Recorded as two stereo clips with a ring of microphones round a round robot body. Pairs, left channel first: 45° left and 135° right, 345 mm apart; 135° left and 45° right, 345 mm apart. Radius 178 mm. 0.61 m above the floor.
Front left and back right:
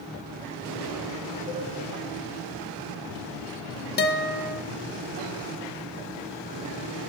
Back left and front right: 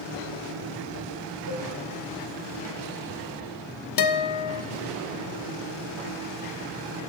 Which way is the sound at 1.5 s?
70° left.